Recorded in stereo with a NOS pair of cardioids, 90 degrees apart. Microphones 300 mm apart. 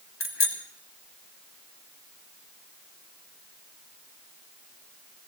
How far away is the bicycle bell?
About 6 m.